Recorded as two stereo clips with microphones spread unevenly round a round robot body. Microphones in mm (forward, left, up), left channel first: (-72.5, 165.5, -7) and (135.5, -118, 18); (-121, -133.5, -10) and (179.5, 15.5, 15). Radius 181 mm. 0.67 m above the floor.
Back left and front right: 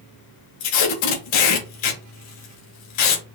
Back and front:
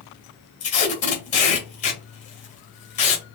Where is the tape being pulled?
135° left, 2.0 m.